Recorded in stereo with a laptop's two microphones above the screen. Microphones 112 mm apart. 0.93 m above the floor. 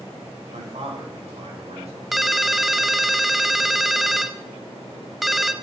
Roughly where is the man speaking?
Right.